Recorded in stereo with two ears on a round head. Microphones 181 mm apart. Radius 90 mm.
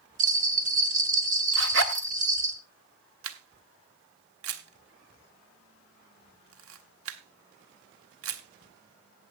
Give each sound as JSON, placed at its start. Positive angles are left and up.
{"t": 0.2, "sound": "a bell", "side_deg": -40, "distance_m": 1.7}
{"t": 1.5, "sound": "a zipper", "side_deg": -65, "distance_m": 1.3}
{"t": 3.2, "sound": "a camera shutter", "side_deg": -80, "distance_m": 1.5}